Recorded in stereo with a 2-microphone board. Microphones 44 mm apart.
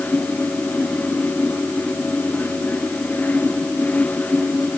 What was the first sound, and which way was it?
Only background noise.